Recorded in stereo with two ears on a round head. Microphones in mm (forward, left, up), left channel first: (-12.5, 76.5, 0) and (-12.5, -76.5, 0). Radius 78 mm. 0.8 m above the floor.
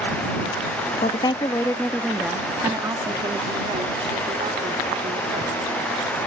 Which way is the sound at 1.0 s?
35° left (ahead or behind).